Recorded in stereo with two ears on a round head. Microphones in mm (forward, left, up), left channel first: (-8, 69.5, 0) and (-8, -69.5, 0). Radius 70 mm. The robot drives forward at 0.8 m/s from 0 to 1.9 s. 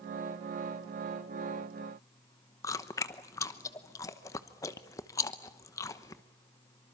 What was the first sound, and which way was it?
Chewing, 20° left (ahead or behind).